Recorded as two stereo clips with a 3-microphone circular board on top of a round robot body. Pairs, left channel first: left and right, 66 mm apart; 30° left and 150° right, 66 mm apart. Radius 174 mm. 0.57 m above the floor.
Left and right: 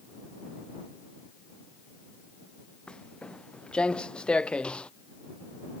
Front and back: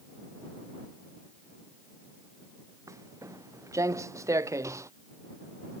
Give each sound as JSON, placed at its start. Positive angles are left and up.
{"t": 2.9, "sound": "footsteps", "azimuth_deg": 165}